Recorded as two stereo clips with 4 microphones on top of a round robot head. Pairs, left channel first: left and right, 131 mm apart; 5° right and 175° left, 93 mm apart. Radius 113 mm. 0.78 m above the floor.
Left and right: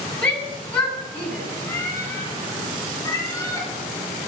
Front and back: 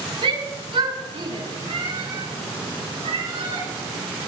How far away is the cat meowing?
About 9.5 m.